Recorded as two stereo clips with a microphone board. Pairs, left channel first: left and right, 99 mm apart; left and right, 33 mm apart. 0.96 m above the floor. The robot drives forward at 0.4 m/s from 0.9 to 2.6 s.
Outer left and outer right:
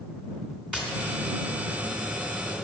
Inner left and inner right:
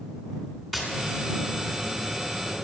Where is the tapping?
10° right (ahead or behind), 3 m; by 2.7 s 5° right (ahead or behind), 3.5 m.